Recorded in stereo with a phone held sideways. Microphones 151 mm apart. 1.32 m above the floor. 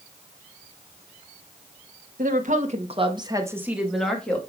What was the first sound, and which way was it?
A woman speaking, 65° right (ahead or behind).